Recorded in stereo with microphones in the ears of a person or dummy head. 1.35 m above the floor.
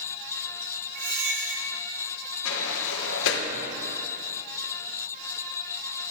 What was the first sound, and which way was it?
A squeak, 65° right (ahead or behind).